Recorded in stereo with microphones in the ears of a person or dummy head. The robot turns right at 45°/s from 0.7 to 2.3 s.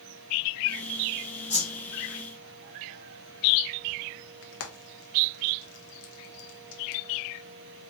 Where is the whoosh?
35° left (ahead or behind), 2.5 m; by 1.8 s 20° left (ahead or behind), 2.5 m.